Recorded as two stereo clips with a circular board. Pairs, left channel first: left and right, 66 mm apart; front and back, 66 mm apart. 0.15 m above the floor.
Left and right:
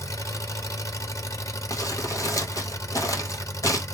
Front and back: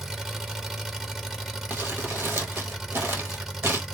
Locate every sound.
0.0 s an engine running: 100° left, 0.8 m
1.7 s crumpling: 125° left, 1.1 m